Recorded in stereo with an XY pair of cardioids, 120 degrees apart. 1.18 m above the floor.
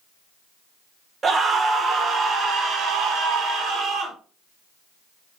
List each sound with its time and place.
1.2 s a scream: 35° right, 1.3 m; by 4.2 s 65° right, 2.5 m